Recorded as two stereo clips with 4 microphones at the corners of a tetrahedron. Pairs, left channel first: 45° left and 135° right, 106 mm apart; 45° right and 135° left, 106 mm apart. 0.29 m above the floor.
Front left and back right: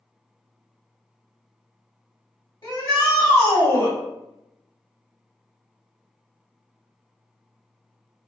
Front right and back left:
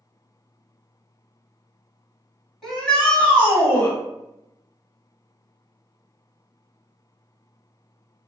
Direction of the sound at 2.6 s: 40° left.